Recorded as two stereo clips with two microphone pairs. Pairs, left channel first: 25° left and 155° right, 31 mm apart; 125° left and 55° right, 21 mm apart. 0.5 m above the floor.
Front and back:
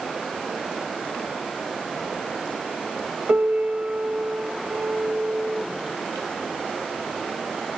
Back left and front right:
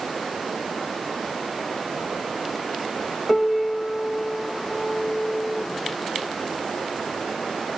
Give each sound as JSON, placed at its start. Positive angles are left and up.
{"t": 3.3, "sound": "a piano", "azimuth_deg": -150, "distance_m": 0.5}